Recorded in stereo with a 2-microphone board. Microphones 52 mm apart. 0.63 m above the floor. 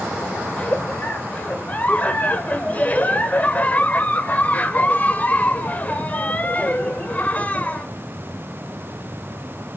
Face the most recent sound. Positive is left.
turn(degrees=30)  # may be behind; listen again after turning